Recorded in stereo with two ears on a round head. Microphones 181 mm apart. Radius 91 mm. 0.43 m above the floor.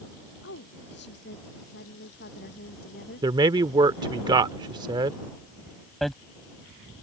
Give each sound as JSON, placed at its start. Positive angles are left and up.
{"t": 0.4, "sound": "a woman speaking", "side_deg": 60}
{"t": 3.2, "sound": "a man speaking", "side_deg": -20}
{"t": 6.0, "sound": "hammering", "side_deg": 0}